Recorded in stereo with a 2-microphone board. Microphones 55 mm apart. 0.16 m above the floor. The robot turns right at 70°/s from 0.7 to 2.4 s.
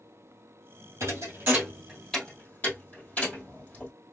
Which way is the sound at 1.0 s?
65° right (ahead or behind).